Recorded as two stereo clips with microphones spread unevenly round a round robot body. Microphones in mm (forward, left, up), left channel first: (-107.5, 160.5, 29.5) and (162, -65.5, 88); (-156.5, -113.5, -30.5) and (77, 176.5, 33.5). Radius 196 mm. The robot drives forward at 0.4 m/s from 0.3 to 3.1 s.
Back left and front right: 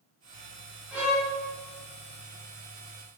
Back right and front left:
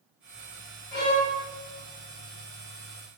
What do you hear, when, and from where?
0.9 s a violin: 135° right, 0.7 m; by 1.3 s 150° right, 0.8 m